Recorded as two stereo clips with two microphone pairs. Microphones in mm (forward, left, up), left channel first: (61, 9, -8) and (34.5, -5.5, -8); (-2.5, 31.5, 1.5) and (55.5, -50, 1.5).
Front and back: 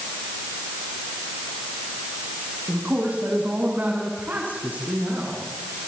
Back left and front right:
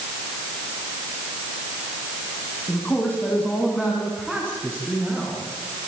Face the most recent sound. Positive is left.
turn(degrees=-135)